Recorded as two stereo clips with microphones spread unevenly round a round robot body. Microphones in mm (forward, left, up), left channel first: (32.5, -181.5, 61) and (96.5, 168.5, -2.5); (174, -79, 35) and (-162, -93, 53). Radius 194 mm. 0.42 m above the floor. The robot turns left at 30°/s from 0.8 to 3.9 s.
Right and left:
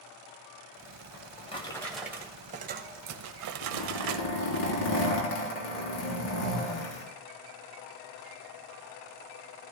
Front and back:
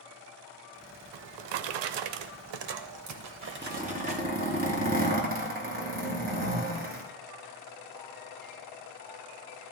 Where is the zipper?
105° right, 3.5 m; by 7.0 s 115° right, 3.5 m.